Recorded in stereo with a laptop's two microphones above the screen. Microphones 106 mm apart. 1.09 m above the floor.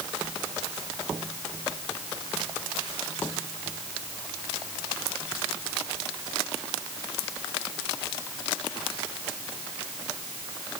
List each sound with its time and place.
Only background noise.